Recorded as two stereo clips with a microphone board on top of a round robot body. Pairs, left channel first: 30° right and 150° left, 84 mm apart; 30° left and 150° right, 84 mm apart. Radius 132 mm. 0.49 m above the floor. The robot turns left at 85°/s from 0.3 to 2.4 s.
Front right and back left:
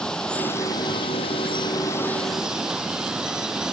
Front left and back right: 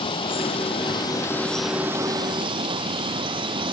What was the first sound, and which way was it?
Running water, 50° left.